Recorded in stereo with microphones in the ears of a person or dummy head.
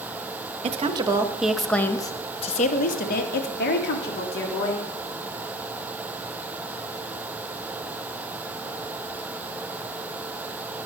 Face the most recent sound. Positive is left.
turn(degrees=65)  # may be behind; listen again after turning